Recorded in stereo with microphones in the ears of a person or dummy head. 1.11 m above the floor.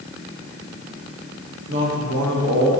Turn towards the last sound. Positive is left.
turn(degrees=-65)  # may be behind; listen again after turning